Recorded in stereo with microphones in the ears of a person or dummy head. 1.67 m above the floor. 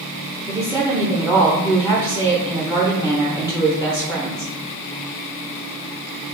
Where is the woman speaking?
5° right (ahead or behind), 0.8 m.